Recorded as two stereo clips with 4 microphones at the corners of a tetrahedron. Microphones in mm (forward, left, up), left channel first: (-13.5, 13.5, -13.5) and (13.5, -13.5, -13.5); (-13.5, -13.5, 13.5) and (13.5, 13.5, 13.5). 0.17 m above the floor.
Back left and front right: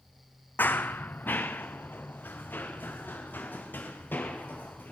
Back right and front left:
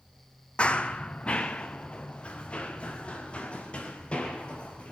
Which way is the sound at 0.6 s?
165° left.